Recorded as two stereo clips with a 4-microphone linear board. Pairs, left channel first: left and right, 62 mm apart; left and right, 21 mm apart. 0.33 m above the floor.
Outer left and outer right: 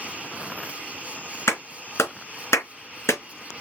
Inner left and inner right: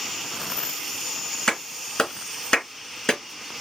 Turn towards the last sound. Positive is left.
turn(degrees=50)  # may be behind; listen again after turning